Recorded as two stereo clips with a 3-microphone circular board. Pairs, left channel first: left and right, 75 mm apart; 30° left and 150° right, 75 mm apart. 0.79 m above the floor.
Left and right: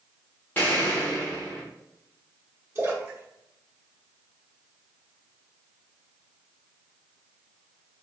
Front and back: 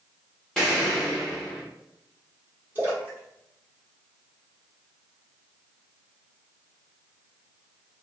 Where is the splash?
105° right, 1.2 m.